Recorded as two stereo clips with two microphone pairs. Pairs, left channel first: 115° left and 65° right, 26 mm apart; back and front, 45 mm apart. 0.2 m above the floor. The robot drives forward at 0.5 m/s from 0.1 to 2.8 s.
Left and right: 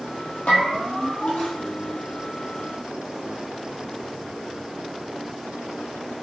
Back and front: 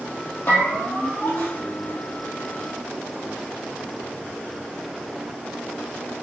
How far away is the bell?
About 2.5 m.